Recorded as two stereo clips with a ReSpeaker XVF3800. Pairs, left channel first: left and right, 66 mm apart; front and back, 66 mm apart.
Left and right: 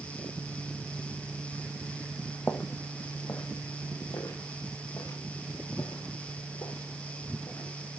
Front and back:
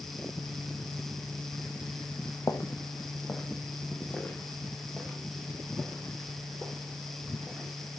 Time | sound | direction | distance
2.5 | footsteps | 35° left | 1.7 m